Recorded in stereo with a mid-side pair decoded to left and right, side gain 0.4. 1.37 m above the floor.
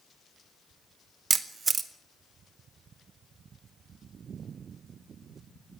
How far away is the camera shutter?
About 1.6 m.